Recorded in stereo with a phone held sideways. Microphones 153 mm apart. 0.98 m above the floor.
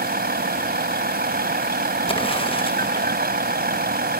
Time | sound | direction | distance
0.0 | a vehicle | 85° right | ?
2.1 | an explosion | 35° left (ahead or behind) | ?